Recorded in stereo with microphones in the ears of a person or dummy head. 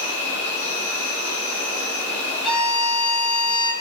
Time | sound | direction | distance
0.0 | an insect | 35° left (ahead or behind) | 1.1 m
2.4 | a violin | 5° left (ahead or behind) | 0.9 m